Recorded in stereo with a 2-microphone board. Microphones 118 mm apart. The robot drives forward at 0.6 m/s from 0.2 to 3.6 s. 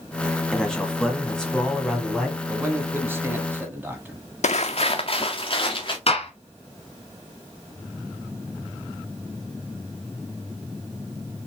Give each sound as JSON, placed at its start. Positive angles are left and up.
{"t": 0.5, "sound": "a man speaking", "side_deg": 5, "distance_m": 1.5}
{"t": 2.5, "sound": "a man speaking", "side_deg": -20, "distance_m": 1.2}
{"t": 4.4, "sound": "footsteps", "side_deg": 75, "distance_m": 0.6}
{"t": 6.1, "sound": "a gunshot", "side_deg": 55, "distance_m": 1.3}